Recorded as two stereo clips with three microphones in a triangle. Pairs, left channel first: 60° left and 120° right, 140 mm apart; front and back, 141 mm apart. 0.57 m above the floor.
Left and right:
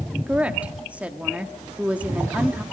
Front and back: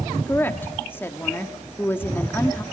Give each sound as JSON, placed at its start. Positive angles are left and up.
{"t": 0.3, "sound": "a woman speaking", "azimuth_deg": -50, "distance_m": 1.2}